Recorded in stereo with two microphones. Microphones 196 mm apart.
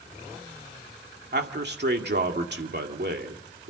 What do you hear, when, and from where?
1.3 s a man speaking: 60° right (ahead or behind), 1.9 m